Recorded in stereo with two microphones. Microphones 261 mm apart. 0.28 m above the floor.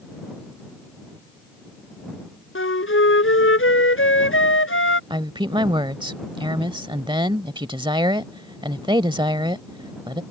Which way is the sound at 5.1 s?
20° right (ahead or behind).